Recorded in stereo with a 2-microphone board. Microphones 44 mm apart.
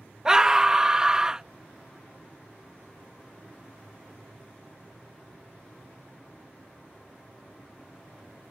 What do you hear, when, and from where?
0.2 s a scream: 15° right (ahead or behind)